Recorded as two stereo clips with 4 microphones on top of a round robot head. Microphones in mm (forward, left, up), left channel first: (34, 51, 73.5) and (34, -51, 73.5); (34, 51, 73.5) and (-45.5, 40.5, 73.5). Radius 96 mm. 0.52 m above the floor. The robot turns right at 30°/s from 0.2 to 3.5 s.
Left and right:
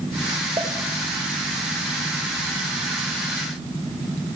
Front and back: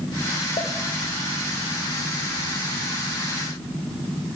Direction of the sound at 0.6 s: 30° right.